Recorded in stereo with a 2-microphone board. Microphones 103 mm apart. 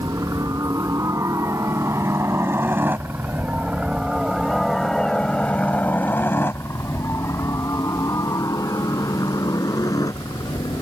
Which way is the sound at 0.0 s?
30° right (ahead or behind).